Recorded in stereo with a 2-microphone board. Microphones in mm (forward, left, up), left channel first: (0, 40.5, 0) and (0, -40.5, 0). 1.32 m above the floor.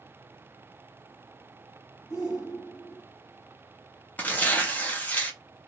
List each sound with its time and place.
2.1 s a shout: 40° left (ahead or behind), 1.7 m
4.2 s tearing paper: 20° left (ahead or behind), 0.9 m